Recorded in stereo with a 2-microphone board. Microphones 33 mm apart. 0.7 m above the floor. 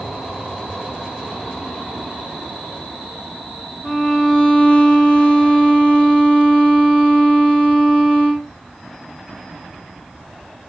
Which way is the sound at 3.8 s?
5° left (ahead or behind).